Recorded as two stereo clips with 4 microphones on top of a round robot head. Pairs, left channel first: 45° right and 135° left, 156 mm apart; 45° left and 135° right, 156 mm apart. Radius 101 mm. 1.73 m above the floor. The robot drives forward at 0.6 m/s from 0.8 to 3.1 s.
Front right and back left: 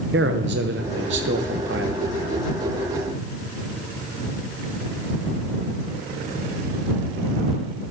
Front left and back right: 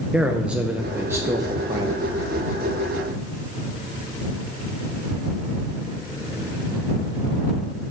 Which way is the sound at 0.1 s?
140° left.